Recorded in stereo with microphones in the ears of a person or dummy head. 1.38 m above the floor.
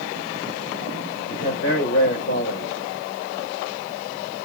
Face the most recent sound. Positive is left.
turn(degrees=75)  # may be behind; listen again after turning